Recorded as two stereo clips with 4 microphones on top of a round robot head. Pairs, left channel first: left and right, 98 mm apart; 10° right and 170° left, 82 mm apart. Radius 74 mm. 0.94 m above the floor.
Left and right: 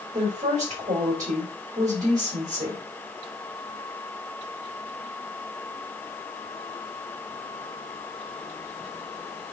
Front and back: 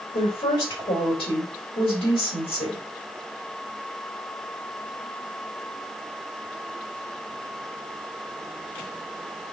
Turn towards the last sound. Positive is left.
turn(degrees=-35)